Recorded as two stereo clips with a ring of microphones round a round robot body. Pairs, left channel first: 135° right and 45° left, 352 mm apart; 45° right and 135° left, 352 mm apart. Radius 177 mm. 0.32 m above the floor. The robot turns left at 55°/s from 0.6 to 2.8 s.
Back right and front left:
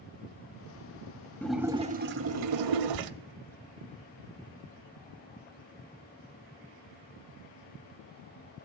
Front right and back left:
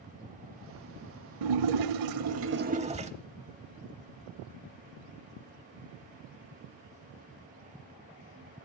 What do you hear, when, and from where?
1.4 s a splash: 140° left, 0.6 m; by 3.1 s 65° left, 0.6 m